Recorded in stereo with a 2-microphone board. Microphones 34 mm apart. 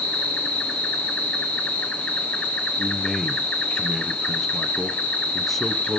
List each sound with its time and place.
0.0 s an insect: 45° left (ahead or behind), 1.3 m
2.8 s a man speaking: 5° left (ahead or behind), 1.1 m